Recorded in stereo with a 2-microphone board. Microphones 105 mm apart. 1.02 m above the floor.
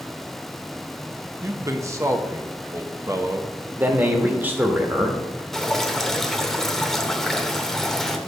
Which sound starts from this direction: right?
A man speaking, at 1.4 s.